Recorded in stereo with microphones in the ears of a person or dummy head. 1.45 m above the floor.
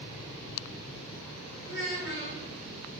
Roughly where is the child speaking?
Right.